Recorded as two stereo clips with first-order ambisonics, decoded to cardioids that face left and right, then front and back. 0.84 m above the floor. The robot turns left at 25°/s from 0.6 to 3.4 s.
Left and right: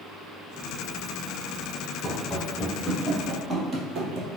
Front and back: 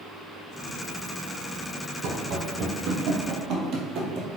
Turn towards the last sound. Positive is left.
turn(degrees=-135)